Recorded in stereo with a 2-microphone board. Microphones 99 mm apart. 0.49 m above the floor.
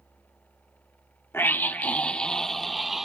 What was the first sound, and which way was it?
A scream, 20° left (ahead or behind).